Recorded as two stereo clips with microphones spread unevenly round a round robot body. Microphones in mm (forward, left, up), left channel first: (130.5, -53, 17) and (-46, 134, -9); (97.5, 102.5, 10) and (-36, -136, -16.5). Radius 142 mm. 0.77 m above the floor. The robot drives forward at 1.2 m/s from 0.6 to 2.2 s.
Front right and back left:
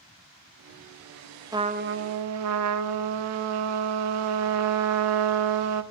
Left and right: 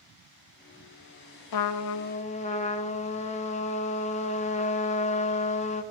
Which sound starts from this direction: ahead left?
A trumpet, at 1.5 s.